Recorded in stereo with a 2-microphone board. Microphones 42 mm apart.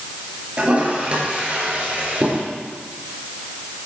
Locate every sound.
0.6 s a toilet flushing: 35° right (ahead or behind), 4 m